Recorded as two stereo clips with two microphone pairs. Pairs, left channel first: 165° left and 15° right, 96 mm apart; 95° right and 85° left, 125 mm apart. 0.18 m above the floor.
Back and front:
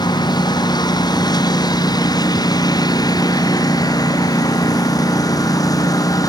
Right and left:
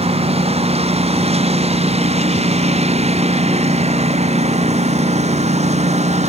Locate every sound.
0.0 s a lawn mower: 125° left; by 6.3 s 115° left